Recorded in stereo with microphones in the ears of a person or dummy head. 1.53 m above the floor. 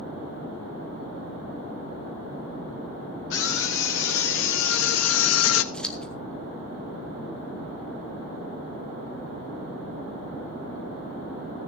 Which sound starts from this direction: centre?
Scissors, at 5.7 s.